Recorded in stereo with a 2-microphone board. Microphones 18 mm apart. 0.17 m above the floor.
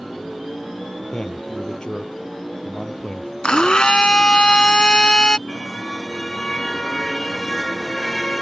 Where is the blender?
55° left (ahead or behind).